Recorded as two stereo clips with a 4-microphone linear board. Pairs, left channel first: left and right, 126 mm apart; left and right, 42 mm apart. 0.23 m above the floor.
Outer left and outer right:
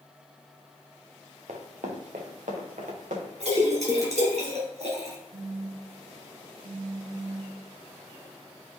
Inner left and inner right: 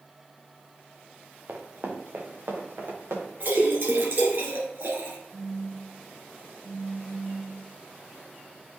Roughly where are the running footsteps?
Right.